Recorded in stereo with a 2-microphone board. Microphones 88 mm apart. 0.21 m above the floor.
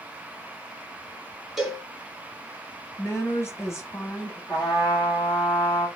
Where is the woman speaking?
35° left (ahead or behind), 1.2 m.